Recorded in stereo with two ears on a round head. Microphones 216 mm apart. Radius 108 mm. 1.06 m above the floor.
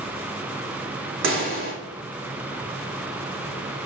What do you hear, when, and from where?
1.2 s a pop: 60° right (ahead or behind), 3 m